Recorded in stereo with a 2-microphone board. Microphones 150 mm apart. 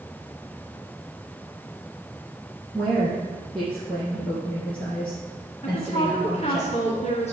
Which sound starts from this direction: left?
A woman speaking, at 5.6 s.